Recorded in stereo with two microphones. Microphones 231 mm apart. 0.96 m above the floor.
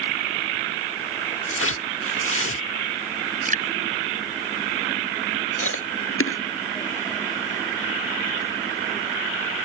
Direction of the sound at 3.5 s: 35° right (ahead or behind).